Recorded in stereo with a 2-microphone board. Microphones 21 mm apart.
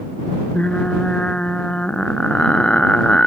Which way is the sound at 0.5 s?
55° left (ahead or behind).